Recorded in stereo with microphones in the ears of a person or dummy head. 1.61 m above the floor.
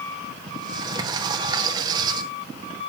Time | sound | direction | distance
0.5 | a sliding door | 20° right (ahead or behind) | 1.3 m